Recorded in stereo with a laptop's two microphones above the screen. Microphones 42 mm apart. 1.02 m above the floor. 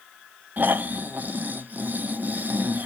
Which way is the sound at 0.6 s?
40° right (ahead or behind).